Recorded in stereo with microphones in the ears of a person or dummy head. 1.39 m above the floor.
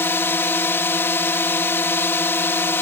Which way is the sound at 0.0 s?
10° left (ahead or behind).